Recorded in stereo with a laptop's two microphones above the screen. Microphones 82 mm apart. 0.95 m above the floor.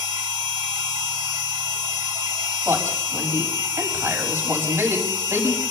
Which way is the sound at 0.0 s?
55° right (ahead or behind).